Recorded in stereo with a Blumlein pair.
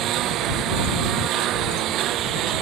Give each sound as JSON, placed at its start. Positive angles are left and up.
{"t": 0.0, "sound": "a lawn mower", "azimuth_deg": -35}